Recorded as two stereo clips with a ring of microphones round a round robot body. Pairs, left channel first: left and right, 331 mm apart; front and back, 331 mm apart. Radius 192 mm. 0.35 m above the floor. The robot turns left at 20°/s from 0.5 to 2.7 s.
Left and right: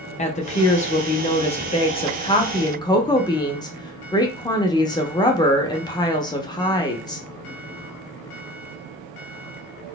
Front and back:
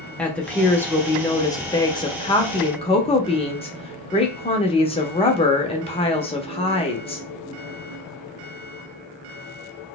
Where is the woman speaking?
80° left, 0.8 m; by 7.2 s 35° left, 0.8 m.